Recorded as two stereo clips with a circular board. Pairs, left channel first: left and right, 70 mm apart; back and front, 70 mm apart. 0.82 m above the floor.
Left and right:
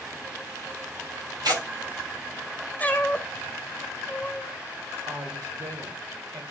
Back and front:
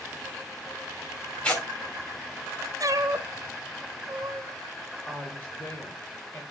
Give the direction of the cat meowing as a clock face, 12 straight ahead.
11 o'clock.